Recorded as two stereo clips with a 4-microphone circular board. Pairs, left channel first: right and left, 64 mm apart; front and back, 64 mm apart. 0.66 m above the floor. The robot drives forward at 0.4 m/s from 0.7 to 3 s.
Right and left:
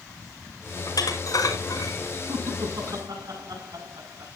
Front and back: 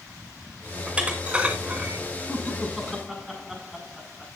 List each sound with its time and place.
0.9 s dishes clattering: 105° right, 4.5 m; by 2.0 s 110° right, 4.5 m
2.3 s laughter: 90° left, 6.5 m; by 4.3 s 95° left, 6.5 m